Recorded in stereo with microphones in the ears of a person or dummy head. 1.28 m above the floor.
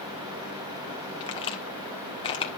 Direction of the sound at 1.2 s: 30° left (ahead or behind).